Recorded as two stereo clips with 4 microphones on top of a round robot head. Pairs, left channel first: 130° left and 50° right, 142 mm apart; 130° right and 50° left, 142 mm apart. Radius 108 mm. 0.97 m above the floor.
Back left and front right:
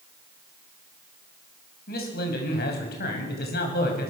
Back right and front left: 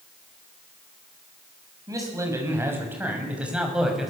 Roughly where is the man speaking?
Behind left.